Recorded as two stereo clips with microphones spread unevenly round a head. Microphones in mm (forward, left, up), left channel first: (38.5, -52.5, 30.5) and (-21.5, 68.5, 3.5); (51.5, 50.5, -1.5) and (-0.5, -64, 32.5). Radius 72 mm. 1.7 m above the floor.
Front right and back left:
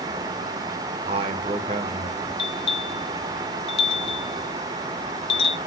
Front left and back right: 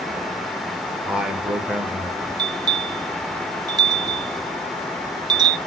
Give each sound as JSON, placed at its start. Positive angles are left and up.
{"t": 1.1, "sound": "a man speaking", "azimuth_deg": 165, "distance_m": 1.3}
{"t": 2.4, "sound": "a bell", "azimuth_deg": -85, "distance_m": 0.7}